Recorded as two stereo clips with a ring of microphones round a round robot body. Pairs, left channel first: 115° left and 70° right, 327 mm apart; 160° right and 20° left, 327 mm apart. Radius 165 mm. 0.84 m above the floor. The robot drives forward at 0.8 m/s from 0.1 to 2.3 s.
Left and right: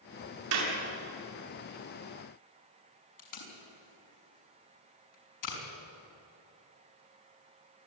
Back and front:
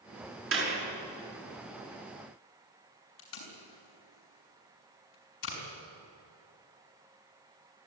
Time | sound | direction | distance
0.5 | a clap | 30° right | 7 m
3.2 | tape being pulled | 150° left | 5.5 m